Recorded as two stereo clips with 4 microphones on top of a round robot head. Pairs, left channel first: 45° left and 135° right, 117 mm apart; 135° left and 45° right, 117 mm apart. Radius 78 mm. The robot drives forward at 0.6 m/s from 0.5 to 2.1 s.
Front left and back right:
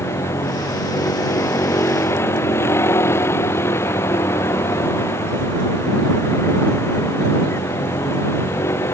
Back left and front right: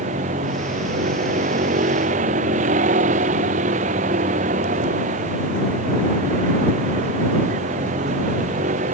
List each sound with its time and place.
0.0 s a vehicle: 25° right